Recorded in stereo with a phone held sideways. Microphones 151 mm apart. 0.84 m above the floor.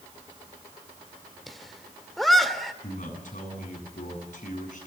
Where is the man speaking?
60° left (ahead or behind), 9 m.